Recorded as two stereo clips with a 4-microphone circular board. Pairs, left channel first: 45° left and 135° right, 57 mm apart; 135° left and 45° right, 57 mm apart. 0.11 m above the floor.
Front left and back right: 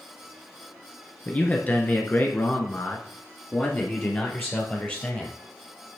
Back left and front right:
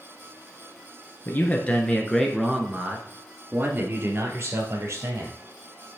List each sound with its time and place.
1.2 s a man speaking: 100° left, 1.4 m; by 5.3 s 15° right, 2.5 m